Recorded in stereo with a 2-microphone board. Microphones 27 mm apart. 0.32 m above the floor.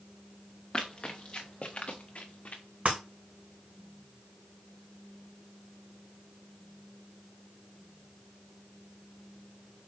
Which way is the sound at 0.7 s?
25° left (ahead or behind).